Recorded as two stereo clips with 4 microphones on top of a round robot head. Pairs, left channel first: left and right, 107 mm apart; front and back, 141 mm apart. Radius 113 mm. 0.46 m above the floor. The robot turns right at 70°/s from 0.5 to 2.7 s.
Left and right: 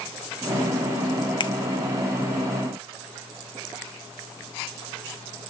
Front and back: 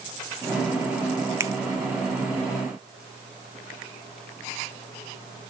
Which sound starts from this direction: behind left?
A finger snap, at 1.4 s.